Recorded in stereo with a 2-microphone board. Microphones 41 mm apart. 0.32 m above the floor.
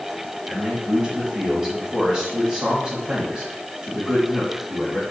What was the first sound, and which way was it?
A man speaking, 20° right (ahead or behind).